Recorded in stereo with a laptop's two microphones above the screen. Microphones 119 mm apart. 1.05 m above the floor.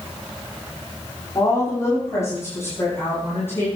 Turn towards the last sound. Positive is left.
turn(degrees=15)  # may be behind; listen again after turning